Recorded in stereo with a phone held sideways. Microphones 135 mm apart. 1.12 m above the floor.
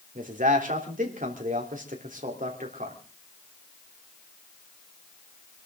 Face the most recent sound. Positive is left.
turn(degrees=-85)